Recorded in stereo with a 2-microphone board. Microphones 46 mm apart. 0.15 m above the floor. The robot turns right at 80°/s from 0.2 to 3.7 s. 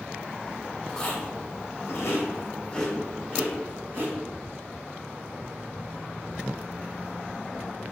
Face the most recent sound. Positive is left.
turn(degrees=-60)  # may be behind; listen again after turning